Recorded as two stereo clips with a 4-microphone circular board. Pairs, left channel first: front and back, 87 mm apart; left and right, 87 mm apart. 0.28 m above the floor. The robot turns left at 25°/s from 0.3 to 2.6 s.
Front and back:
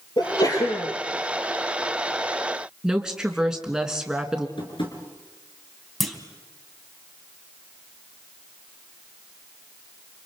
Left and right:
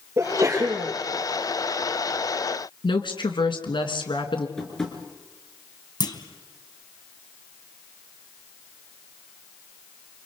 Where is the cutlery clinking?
I don't hear cutlery clinking.